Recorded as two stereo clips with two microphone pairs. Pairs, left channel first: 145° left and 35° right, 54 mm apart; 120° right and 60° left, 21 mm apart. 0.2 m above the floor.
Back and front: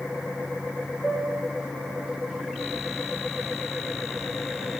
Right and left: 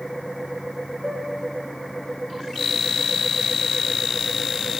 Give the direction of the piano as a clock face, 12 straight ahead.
8 o'clock.